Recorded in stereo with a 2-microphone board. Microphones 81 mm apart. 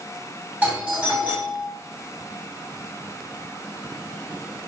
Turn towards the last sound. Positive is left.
turn(degrees=-20)  # may be behind; listen again after turning